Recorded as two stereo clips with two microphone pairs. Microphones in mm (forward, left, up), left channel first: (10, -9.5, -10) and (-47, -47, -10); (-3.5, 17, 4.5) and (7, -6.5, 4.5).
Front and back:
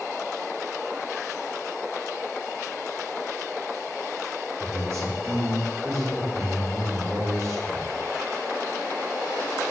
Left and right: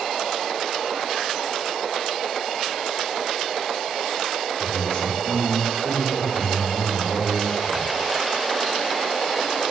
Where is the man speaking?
170° left, 5.5 m.